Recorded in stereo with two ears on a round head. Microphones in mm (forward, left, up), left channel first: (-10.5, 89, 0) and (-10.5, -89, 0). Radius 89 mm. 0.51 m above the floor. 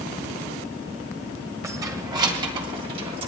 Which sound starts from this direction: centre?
Keys jangling, at 1.6 s.